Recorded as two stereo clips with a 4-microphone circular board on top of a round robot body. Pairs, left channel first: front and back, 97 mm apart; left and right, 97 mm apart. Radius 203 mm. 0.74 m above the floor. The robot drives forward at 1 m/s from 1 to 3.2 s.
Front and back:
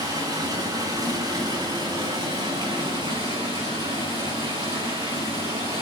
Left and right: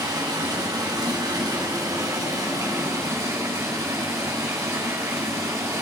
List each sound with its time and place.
0.0 s running water: 135° right, 5.5 m; by 5.8 s 145° right, 7.5 m